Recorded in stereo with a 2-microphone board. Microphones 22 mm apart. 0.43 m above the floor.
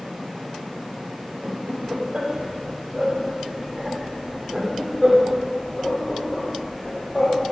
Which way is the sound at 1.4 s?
45° right (ahead or behind).